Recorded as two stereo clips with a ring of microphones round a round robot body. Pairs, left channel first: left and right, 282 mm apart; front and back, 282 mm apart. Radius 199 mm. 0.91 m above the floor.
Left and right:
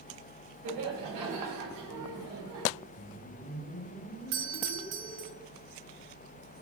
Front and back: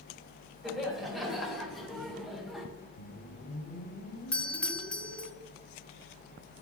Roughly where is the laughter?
Right.